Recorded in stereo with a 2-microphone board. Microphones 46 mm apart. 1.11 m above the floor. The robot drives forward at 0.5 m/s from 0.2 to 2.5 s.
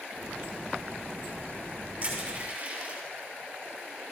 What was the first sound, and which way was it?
Crushing, 25° right (ahead or behind).